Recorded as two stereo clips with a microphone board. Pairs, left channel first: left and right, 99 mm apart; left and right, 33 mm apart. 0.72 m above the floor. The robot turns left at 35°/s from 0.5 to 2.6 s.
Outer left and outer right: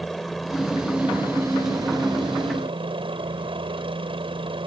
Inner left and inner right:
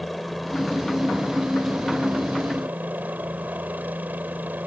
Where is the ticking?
No ticking in this recording.